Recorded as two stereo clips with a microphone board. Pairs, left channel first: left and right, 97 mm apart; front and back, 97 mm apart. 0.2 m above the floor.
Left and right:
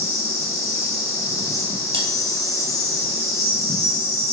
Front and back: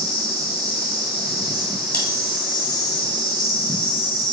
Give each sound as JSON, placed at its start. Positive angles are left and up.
{"t": 0.0, "sound": "an insect", "azimuth_deg": 140, "distance_m": 2.0}
{"t": 1.9, "sound": "cutlery clinking", "azimuth_deg": -75, "distance_m": 2.0}